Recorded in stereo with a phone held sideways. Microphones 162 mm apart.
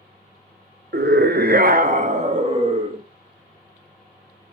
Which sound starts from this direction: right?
A scream, at 0.9 s.